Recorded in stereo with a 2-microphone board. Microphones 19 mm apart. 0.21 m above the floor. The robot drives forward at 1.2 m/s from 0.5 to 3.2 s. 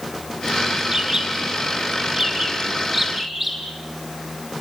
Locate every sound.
0.9 s a bird: 30° right (ahead or behind), 2.0 m; by 3.6 s 15° right (ahead or behind), 4 m